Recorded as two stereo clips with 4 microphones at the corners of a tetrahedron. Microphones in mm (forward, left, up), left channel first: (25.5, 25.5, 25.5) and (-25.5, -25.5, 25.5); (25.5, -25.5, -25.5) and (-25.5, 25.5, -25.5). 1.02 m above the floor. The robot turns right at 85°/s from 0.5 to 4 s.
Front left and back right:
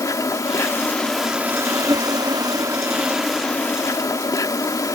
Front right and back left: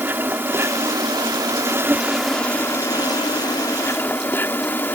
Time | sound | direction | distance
0.0 | an insect | 75° left | ?